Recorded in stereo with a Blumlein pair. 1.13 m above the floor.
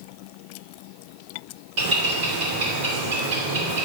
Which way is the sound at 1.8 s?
45° right.